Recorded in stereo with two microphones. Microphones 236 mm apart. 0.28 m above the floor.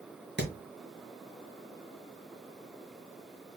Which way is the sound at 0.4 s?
50° right (ahead or behind).